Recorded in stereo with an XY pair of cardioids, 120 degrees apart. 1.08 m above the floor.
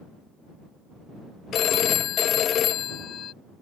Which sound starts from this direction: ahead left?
A phone ringing, at 1.5 s.